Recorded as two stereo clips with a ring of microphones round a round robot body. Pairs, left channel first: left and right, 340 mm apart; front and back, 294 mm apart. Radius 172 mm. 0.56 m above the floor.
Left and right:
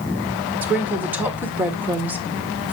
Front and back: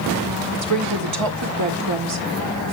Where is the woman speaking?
175° right, 1.7 m.